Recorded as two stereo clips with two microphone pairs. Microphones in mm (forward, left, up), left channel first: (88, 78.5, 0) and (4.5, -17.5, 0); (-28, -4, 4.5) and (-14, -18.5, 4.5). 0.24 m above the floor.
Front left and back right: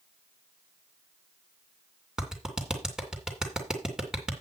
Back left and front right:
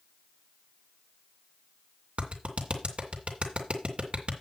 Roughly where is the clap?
Ahead right.